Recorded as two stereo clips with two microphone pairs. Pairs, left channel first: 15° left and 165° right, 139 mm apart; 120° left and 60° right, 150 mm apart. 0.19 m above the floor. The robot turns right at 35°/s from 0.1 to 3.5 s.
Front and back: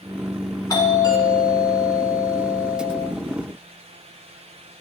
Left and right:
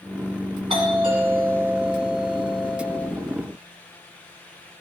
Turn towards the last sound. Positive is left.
turn(degrees=65)